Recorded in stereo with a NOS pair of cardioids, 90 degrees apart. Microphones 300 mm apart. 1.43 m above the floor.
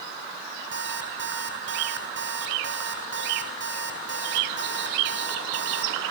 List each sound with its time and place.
0.7 s an alarm clock: 40° right, 6 m